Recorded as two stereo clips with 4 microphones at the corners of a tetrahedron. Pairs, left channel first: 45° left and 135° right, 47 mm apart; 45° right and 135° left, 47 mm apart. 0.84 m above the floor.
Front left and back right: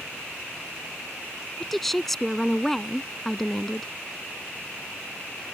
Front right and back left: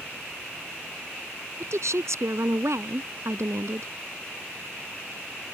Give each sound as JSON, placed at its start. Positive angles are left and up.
{"t": 1.6, "sound": "a woman speaking", "azimuth_deg": 135}